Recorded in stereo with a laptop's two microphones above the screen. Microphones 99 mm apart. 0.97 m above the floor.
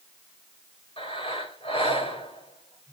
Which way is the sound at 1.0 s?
65° left (ahead or behind).